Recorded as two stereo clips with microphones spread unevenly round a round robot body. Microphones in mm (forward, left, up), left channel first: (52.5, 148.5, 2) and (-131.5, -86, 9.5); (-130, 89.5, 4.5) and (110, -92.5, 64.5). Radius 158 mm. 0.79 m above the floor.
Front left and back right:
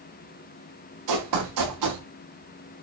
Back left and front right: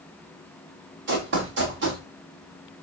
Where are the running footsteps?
90° right, 5.5 m.